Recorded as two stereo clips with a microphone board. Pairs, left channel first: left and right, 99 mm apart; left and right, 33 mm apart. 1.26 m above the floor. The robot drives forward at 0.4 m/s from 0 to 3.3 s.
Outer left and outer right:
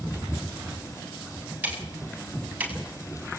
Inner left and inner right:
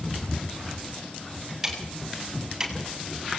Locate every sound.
1.6 s ticking: 15° right (ahead or behind), 7.5 m